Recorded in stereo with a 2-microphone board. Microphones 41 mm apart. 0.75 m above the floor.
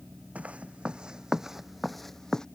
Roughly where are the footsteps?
Right.